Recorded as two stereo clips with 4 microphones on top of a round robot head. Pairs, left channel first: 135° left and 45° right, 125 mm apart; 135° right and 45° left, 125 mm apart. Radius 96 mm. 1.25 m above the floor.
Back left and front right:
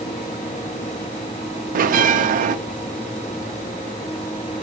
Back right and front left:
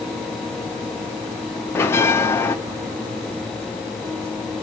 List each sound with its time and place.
1.8 s a bell: 60° right, 0.6 m